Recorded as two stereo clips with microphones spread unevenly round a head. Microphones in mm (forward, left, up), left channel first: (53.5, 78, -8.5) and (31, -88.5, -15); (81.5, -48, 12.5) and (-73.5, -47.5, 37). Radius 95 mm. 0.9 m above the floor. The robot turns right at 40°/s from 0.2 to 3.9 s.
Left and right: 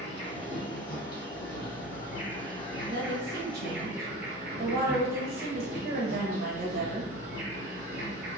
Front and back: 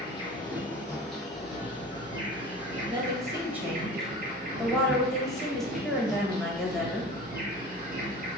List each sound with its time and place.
0.0 s an insect: 40° left, 0.8 m; by 8.4 s 175° right, 0.8 m
2.9 s a woman speaking: 120° right, 0.9 m; by 7.1 s 80° right, 0.9 m